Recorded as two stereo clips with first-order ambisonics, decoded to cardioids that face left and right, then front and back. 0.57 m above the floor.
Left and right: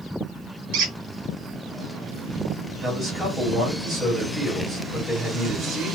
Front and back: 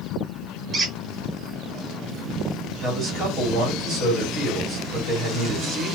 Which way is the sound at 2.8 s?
165° right.